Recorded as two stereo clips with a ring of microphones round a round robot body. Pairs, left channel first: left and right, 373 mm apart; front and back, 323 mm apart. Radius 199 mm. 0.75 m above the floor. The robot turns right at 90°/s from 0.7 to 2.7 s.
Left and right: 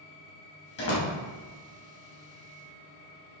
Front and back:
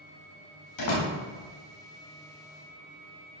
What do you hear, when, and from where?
0.8 s a door slam: 25° left, 3 m; by 1.1 s 60° left, 3 m